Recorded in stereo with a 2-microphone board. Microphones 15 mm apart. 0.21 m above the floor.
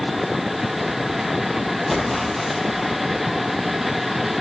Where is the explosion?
10° left (ahead or behind), 6 m.